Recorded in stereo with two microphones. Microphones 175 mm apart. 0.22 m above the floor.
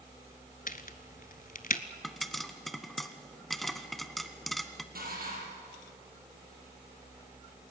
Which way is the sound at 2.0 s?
Centre (ahead or behind).